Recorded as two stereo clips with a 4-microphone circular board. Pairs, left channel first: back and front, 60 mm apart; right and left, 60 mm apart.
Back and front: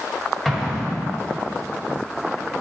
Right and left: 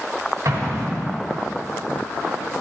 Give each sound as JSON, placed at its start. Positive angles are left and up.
{"t": 0.5, "sound": "an explosion", "azimuth_deg": 95, "distance_m": 2.0}